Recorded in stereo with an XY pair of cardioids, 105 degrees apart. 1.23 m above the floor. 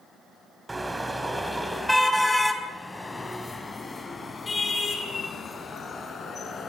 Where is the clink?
No clink in this recording.